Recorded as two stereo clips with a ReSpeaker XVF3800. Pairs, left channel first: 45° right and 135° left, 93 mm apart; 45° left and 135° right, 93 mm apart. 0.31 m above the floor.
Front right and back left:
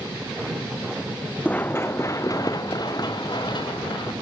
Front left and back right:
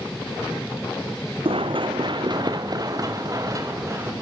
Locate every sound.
1.4 s running footsteps: 120° right, 1.2 m; by 4.1 s 80° right, 3.5 m